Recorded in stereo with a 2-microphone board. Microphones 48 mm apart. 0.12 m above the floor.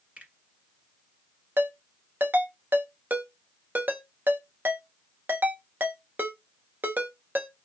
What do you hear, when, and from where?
0.2 s a finger snap: 30° right (ahead or behind), 1.6 m
1.6 s a ringtone: 45° right (ahead or behind), 0.7 m